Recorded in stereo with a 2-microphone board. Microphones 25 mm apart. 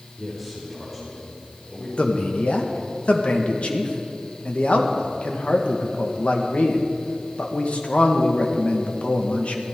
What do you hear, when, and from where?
0.2 s a man speaking: 5° left (ahead or behind), 6 m; by 1.9 s 20° left (ahead or behind), 7 m
2.0 s a man speaking: 60° left (ahead or behind), 1.7 m